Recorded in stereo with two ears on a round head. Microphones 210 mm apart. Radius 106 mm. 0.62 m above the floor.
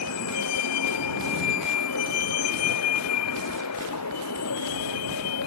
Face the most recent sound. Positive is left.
turn(degrees=90)